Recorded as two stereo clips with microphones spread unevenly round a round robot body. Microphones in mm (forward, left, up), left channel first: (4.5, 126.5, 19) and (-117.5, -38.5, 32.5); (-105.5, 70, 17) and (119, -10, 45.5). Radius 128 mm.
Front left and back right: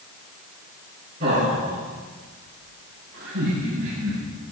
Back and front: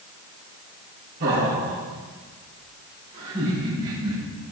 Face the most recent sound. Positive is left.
turn(degrees=-105)